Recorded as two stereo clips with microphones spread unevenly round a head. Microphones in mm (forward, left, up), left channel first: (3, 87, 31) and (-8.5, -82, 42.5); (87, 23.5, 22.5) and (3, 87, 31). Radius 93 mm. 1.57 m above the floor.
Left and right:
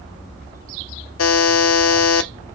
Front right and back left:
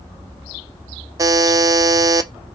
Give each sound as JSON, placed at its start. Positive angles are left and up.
{"t": 1.2, "sound": "a buzzer", "azimuth_deg": 90, "distance_m": 0.6}